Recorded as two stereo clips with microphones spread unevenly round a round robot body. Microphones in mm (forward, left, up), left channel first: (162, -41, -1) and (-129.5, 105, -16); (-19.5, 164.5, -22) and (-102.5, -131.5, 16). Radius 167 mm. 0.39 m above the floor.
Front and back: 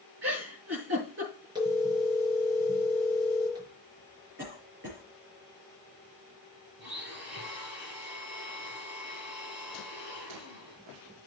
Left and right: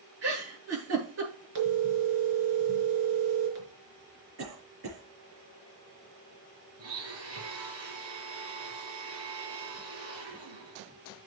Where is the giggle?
150° right, 7.5 m.